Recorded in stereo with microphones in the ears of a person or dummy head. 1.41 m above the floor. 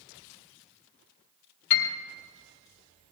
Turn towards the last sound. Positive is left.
turn(degrees=75)  # may be behind; listen again after turning